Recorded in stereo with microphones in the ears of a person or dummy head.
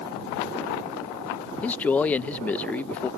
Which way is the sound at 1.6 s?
5° left (ahead or behind).